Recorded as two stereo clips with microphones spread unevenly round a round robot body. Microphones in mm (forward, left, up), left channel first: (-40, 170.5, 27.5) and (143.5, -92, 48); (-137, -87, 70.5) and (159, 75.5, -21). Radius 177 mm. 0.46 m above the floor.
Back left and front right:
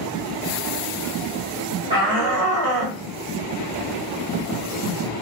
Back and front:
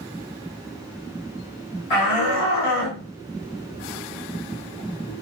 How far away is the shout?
About 1.7 m.